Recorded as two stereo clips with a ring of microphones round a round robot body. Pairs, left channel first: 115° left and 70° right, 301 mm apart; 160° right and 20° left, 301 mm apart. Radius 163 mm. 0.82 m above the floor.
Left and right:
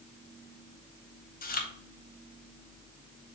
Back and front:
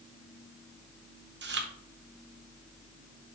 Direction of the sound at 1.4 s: 60° left.